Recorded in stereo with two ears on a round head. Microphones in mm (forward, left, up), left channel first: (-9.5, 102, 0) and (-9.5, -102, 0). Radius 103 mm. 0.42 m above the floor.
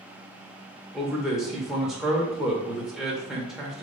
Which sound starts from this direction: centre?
A man speaking, at 0.9 s.